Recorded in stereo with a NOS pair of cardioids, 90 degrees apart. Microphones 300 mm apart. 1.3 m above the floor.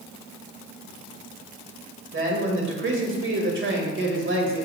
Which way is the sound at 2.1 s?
40° right.